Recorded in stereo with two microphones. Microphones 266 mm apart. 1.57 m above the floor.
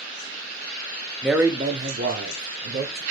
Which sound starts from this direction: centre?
A man speaking, at 1.2 s.